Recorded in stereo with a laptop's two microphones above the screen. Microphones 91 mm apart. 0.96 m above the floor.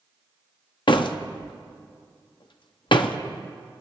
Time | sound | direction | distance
0.9 | a door slam | 60° left (ahead or behind) | 0.8 m